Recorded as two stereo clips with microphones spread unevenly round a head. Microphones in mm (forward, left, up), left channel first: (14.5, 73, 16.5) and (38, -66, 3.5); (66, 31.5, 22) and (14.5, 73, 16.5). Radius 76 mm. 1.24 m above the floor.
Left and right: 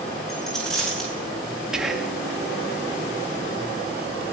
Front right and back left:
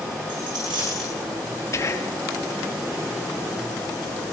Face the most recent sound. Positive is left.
turn(degrees=5)